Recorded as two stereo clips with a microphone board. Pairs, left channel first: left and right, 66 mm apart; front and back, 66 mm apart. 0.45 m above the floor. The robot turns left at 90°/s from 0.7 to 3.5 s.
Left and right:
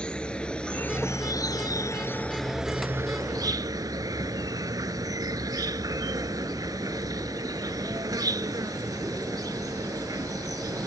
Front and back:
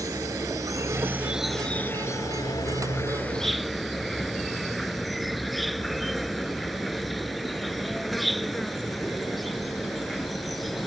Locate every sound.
0.0 s an insect: 165° left; by 10.9 s 90° right